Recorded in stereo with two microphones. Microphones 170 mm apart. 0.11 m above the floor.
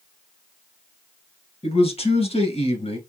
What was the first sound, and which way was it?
A man speaking, 35° left (ahead or behind).